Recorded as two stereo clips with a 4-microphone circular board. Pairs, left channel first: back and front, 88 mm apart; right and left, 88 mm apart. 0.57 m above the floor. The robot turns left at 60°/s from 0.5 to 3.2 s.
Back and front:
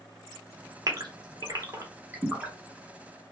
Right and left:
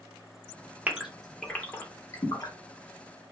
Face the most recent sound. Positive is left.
turn(degrees=-120)